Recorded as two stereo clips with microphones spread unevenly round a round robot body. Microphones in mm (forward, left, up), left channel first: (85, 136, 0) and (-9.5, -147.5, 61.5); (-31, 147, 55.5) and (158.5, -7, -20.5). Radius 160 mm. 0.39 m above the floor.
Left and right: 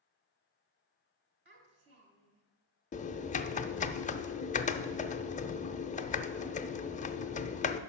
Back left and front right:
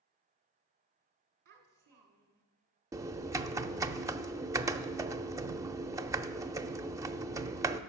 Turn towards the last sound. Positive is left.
turn(degrees=20)